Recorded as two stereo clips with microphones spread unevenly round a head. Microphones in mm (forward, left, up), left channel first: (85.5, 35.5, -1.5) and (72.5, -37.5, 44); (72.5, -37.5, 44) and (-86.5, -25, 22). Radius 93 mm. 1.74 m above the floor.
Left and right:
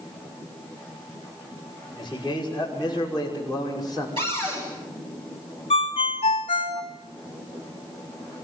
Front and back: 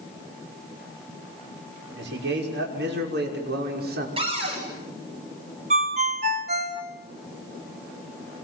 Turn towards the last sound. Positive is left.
turn(degrees=120)